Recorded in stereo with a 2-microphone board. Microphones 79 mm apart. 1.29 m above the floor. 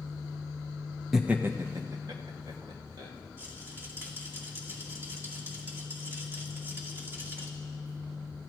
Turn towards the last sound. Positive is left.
turn(degrees=-30)  # may be behind; listen again after turning